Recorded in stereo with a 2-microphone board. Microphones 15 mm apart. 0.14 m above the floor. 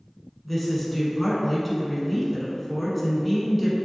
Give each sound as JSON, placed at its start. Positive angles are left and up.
{"t": 0.5, "sound": "a woman speaking", "side_deg": 5, "distance_m": 1.1}